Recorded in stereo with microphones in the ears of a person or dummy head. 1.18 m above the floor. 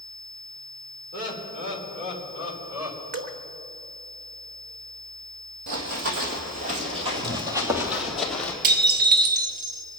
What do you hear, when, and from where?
1.1 s laughter: 55° right (ahead or behind), 3 m; by 3.0 s 15° right (ahead or behind), 4.5 m
3.1 s dripping: 45° right (ahead or behind), 1.2 m
5.7 s running footsteps: 60° right (ahead or behind), 2.5 m; by 8.5 s 5° left (ahead or behind), 2.5 m
8.6 s dishes clattering: 50° right (ahead or behind), 1.2 m